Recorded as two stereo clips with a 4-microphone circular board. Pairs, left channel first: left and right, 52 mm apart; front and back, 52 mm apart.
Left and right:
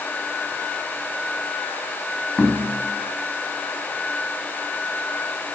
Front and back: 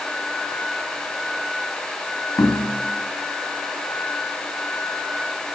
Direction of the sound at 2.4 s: Straight ahead.